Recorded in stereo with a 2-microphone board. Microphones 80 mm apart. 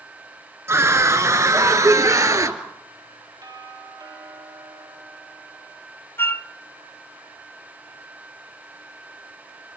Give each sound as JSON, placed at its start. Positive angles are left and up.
{"t": 0.7, "sound": "a scream", "side_deg": -35, "distance_m": 1.8}
{"t": 3.4, "sound": "a doorbell", "side_deg": -55, "distance_m": 4.5}
{"t": 6.2, "sound": "a flute", "side_deg": 30, "distance_m": 0.6}